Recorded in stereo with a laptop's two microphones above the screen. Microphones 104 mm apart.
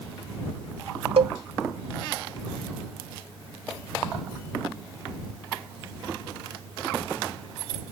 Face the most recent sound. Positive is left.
turn(degrees=-80)